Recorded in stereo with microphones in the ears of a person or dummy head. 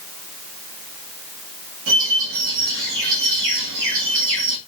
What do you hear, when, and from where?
1.9 s a bird: 60° right (ahead or behind), 2 m